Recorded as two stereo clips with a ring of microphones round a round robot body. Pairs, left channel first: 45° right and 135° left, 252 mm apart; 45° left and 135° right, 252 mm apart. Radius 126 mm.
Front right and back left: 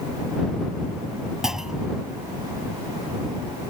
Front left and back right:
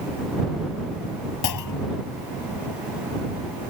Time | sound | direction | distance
1.4 | a clunk | 45° left | ?